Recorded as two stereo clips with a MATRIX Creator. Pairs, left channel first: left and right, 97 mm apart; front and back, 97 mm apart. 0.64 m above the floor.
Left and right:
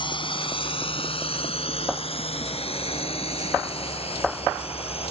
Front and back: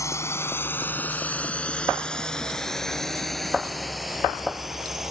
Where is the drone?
60° left; by 5.1 s 95° left.